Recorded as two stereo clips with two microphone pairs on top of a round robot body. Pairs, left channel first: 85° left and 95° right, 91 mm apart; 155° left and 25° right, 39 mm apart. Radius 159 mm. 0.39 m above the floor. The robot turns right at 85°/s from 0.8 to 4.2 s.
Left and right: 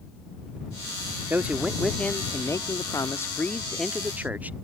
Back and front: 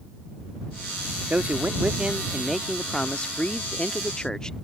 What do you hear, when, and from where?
1.3 s a man speaking: 45° right; by 4.5 s 155° right